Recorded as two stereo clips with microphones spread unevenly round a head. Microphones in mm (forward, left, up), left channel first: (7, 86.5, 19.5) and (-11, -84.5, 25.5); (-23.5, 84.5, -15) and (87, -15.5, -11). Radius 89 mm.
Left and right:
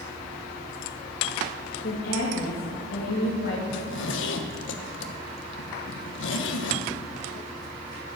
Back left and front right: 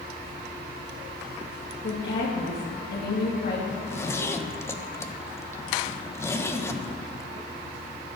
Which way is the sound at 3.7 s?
65° left.